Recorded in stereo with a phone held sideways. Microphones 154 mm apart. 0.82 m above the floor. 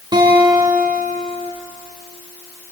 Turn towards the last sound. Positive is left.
turn(degrees=-25)  # may be behind; listen again after turning